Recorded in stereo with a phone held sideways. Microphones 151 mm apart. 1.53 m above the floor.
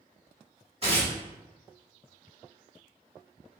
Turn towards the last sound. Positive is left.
turn(degrees=-40)  # may be behind; listen again after turning